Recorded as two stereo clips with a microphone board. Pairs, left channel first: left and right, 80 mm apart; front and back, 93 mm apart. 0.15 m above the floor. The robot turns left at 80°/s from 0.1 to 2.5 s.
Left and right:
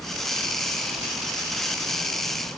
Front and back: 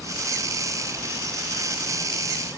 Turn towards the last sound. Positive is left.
No sound to turn to.